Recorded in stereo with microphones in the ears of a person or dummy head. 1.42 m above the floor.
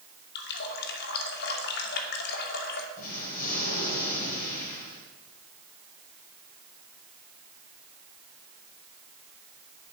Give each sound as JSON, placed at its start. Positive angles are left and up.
{"t": 0.3, "sound": "a running tap", "side_deg": 55, "distance_m": 2.5}
{"t": 3.0, "sound": "an explosion", "side_deg": 45, "distance_m": 8.0}